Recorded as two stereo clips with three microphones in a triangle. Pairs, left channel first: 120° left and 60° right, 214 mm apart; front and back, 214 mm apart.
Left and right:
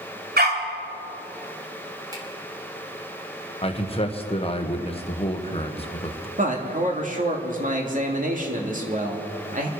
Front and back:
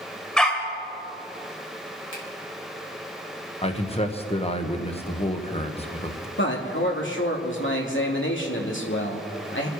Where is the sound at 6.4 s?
15° right, 2.5 m.